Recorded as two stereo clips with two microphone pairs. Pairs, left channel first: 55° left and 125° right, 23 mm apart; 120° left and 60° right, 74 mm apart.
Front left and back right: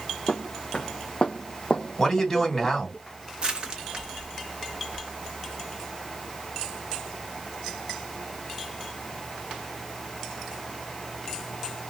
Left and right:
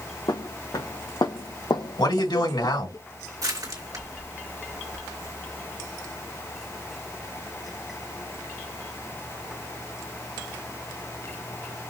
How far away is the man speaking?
About 2.5 m.